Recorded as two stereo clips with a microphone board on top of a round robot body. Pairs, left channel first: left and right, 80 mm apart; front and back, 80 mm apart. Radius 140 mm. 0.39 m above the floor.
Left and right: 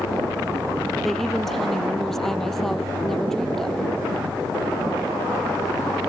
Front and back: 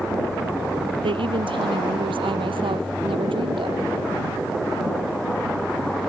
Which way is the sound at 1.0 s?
Straight behind.